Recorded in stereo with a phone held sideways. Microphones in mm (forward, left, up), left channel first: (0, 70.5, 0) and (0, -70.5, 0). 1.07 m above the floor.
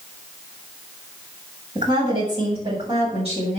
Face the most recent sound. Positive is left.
turn(degrees=-50)  # may be behind; listen again after turning